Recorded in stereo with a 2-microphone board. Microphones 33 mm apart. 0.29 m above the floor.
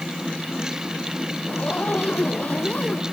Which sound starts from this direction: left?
A zipper, at 1.5 s.